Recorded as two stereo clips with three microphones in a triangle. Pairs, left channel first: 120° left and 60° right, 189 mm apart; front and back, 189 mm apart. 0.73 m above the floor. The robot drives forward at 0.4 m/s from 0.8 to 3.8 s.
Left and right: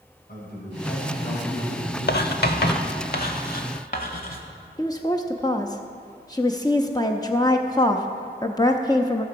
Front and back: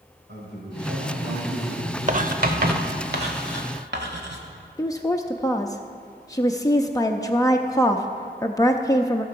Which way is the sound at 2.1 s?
135° left.